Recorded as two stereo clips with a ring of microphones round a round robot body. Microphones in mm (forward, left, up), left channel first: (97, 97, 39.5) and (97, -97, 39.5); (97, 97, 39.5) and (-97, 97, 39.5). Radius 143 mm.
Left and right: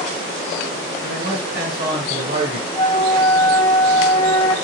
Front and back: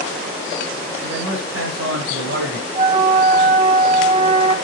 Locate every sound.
1.0 s a man speaking: 145° right, 2.5 m; by 2.6 s 140° right, 1.9 m
2.8 s a flute: 140° left, 1.2 m